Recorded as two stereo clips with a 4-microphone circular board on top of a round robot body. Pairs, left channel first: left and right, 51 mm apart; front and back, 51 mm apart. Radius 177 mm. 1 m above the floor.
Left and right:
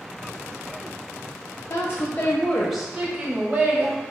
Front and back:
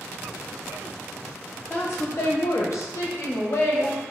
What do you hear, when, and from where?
1.7 s a woman speaking: 60° left, 0.6 m; by 4.0 s 45° right, 1.0 m